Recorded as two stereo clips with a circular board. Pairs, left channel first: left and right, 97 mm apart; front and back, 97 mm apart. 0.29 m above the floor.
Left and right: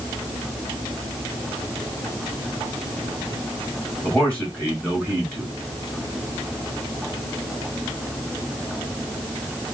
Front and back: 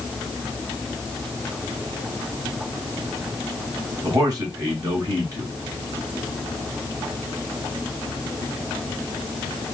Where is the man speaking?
160° left, 1.9 m.